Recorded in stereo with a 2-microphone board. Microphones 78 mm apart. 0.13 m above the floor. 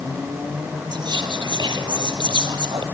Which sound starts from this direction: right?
Whispering, at 0.9 s.